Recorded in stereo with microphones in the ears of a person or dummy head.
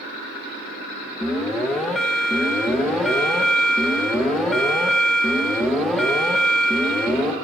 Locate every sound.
1.2 s an alarm: centre (ahead or behind), 0.6 m